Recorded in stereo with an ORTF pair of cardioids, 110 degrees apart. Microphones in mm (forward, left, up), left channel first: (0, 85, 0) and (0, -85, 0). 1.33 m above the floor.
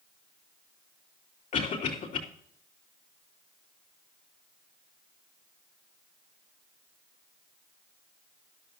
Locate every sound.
1.5 s a cough: 55° left, 3.5 m